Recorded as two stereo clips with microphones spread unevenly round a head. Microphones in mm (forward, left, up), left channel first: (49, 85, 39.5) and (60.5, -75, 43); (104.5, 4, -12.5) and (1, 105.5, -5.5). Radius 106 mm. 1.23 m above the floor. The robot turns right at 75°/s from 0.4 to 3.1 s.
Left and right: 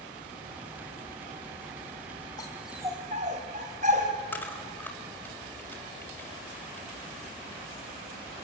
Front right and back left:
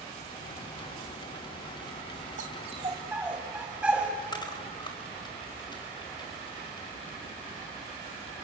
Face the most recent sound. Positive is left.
turn(degrees=15)